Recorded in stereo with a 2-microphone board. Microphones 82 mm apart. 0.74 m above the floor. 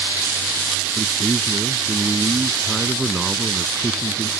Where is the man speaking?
5° right (ahead or behind).